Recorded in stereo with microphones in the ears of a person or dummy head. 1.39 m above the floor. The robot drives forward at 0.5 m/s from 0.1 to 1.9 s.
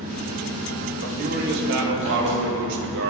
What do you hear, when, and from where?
0.0 s an engine running: 35° right (ahead or behind), 1.8 m; by 3.1 s 25° right (ahead or behind), 2.5 m
1.0 s a man speaking: 55° right (ahead or behind), 2.5 m; by 3.1 s 65° right (ahead or behind), 2.5 m